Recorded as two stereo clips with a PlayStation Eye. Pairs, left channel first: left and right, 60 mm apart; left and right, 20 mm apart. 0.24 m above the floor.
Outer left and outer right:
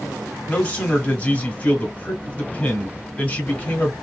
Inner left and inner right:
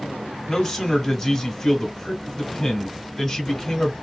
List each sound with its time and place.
0.5 s a man speaking: 20° left (ahead or behind), 1.1 m